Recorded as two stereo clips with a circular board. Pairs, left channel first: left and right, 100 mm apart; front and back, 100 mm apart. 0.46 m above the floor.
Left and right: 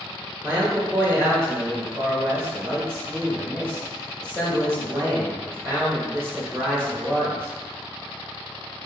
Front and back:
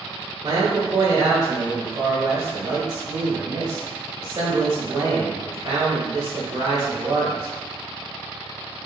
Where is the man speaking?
150° right, 1.1 m.